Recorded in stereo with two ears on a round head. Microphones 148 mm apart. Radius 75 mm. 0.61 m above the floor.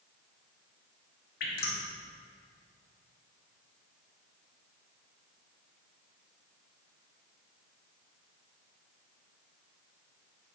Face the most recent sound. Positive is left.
turn(degrees=60)  # may be behind; listen again after turning